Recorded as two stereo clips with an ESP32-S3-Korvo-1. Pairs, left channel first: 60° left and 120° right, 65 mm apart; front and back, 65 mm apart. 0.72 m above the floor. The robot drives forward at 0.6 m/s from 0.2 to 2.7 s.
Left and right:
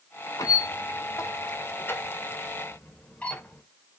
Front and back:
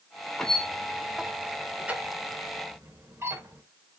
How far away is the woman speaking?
I don't hear a woman speaking.